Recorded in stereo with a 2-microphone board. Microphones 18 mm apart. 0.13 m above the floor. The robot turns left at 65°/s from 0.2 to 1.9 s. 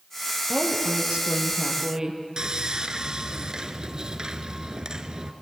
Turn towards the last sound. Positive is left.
turn(degrees=-45)  # may be behind; listen again after turning